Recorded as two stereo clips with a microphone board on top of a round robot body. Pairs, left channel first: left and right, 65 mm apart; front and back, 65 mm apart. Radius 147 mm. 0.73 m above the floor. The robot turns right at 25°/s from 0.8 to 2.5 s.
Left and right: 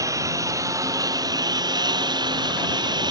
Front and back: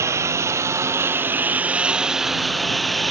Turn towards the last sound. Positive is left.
turn(degrees=-90)